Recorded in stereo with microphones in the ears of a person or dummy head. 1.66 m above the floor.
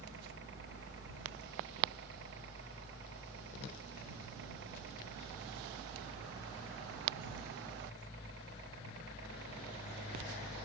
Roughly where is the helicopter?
Right.